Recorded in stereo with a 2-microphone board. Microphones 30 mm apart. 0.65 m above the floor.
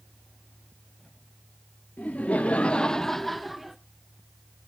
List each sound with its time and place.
2.0 s laughter: 50° left (ahead or behind), 1.0 m; by 3.8 s 5° right (ahead or behind), 1.4 m